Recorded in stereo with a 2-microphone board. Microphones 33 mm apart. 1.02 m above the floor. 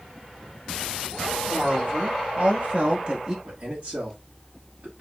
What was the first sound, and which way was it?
A woman speaking, 65° right (ahead or behind).